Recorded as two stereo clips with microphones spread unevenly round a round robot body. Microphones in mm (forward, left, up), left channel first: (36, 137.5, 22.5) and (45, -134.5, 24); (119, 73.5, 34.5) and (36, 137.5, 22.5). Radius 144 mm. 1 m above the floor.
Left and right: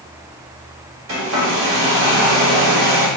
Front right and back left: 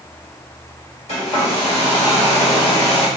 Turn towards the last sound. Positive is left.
turn(degrees=-45)